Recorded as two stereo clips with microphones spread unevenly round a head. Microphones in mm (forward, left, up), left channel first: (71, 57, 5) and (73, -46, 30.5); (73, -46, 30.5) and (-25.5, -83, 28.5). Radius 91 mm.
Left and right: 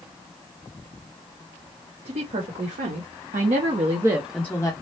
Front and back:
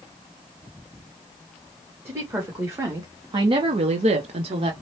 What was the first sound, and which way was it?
A woman speaking, 90° right.